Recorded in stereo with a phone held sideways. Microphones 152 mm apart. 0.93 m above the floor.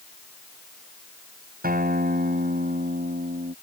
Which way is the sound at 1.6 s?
75° right (ahead or behind).